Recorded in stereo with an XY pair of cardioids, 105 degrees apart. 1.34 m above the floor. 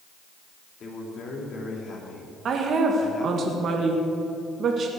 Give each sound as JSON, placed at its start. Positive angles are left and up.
{"t": 0.8, "sound": "a man speaking", "azimuth_deg": 50, "distance_m": 3.5}
{"t": 2.5, "sound": "a woman speaking", "azimuth_deg": -55, "distance_m": 1.7}